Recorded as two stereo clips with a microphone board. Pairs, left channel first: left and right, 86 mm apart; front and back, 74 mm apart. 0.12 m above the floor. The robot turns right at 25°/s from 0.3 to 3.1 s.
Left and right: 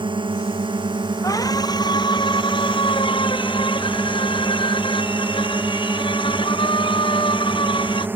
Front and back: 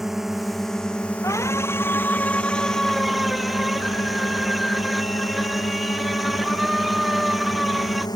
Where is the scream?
45° left; by 8.1 s 90° left.